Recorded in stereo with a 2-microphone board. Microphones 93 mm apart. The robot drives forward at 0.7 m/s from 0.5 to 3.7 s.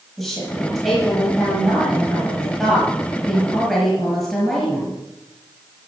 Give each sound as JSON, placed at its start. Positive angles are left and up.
{"t": 0.2, "sound": "a woman speaking", "side_deg": 0, "distance_m": 8.0}